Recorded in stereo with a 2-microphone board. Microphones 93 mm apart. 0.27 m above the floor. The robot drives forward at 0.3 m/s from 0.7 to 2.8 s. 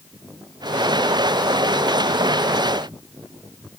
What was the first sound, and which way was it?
Only background noise.